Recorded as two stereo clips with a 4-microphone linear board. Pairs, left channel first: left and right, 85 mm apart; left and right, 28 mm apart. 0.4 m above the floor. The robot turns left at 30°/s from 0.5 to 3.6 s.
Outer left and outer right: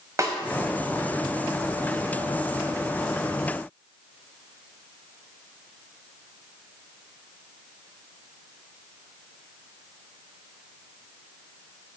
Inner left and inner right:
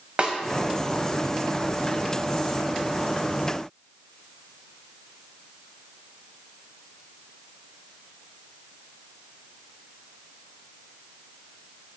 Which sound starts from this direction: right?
A snare drum, at 0.2 s.